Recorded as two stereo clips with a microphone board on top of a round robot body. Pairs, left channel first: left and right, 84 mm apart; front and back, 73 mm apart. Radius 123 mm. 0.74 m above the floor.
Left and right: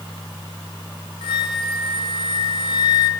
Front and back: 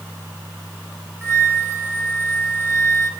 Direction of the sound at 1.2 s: 110° left.